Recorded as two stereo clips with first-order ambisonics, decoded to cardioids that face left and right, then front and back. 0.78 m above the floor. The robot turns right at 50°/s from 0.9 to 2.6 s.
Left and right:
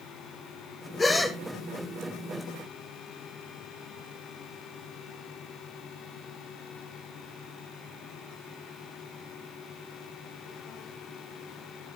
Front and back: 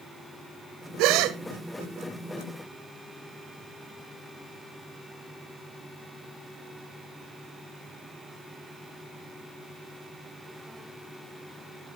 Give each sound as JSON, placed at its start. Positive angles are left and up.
{"t": 1.0, "sound": "a gasp", "azimuth_deg": 165, "distance_m": 0.8}